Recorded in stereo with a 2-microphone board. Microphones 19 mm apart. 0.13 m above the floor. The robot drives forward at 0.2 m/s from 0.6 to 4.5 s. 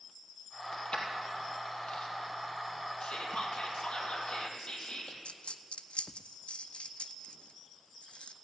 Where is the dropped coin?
85° left, 0.6 m.